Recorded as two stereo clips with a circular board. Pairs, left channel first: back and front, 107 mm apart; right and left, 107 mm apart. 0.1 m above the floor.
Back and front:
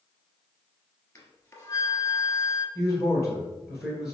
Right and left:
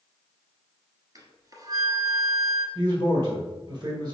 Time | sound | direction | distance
1.1 | a flute | 125° left | 1.0 m
2.8 | a man speaking | 80° left | 1.3 m